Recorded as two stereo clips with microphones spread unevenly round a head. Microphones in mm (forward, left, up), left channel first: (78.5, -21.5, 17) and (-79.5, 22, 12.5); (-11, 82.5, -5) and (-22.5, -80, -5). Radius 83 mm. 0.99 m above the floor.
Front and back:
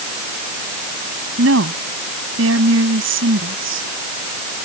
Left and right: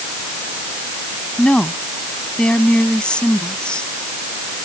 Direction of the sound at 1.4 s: 170° left.